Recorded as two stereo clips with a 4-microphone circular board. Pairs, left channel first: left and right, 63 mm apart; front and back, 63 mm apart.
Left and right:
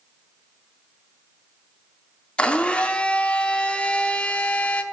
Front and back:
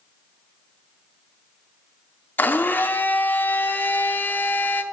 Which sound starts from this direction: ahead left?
A blender, at 2.4 s.